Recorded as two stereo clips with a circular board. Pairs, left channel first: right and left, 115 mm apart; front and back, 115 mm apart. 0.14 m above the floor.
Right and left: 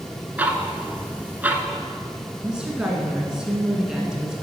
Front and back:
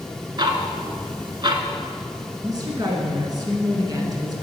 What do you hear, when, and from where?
0.4 s ticking: 160° left, 0.7 m
2.4 s a woman speaking: 170° left, 1.4 m